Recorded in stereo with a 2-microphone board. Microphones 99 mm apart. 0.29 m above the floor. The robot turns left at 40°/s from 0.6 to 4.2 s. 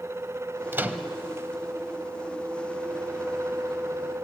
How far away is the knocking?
I don't hear knocking.